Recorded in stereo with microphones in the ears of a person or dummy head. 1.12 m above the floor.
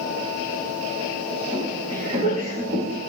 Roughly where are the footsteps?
Right.